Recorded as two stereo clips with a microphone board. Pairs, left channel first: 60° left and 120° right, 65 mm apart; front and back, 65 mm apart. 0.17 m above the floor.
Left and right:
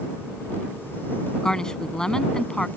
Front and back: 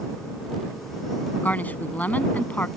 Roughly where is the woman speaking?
Ahead.